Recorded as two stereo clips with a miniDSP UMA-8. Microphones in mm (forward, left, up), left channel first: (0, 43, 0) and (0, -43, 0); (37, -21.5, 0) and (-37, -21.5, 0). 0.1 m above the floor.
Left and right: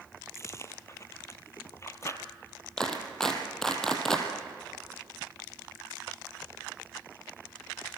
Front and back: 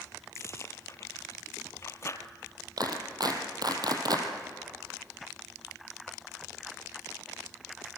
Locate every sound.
0.3 s chewing: 40° left, 1.2 m
2.8 s a clap: 170° left, 3 m